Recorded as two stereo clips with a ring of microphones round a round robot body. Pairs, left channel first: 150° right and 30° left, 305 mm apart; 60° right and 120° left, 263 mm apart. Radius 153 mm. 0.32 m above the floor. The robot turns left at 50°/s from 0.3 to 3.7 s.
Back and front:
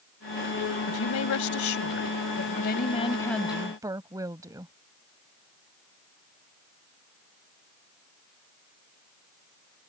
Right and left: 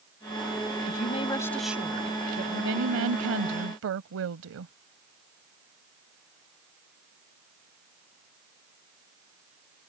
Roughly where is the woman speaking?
Right.